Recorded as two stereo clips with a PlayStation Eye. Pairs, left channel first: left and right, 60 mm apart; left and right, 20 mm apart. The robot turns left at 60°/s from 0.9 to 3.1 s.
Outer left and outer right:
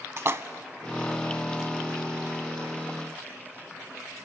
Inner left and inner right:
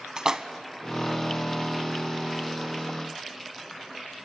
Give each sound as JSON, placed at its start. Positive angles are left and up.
{"t": 0.2, "sound": "a splash", "side_deg": -45, "distance_m": 0.9}